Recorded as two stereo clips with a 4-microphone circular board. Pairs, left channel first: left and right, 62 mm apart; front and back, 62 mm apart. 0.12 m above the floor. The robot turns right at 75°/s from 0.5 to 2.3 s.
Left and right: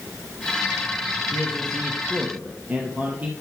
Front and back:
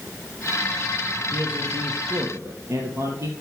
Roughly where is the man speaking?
Behind left.